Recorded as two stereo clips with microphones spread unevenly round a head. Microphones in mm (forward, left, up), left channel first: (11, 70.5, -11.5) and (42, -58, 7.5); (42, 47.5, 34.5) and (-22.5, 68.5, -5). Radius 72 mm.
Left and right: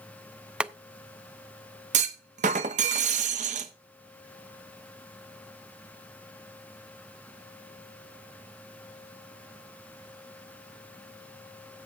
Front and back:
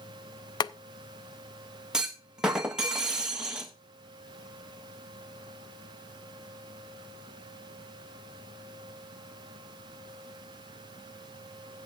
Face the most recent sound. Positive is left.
turn(degrees=-125)